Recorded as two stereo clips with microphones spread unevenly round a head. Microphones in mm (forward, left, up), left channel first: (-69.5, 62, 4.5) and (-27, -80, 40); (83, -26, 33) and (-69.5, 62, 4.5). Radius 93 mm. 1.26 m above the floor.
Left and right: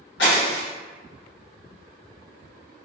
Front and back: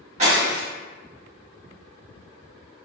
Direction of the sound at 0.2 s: 95° left.